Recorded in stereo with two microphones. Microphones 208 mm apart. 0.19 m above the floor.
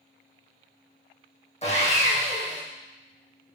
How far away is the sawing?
About 1.9 m.